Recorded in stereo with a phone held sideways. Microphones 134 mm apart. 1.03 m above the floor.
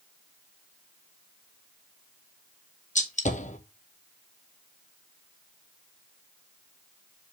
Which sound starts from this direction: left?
A gunshot, at 3.0 s.